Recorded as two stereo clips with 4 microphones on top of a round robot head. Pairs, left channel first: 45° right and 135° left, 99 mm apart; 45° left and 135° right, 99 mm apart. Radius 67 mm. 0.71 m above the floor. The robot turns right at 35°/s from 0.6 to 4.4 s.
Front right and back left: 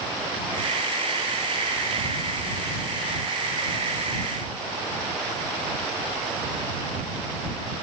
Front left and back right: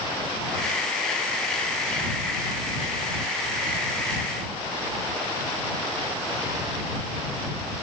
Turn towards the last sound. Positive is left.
No sound to turn to.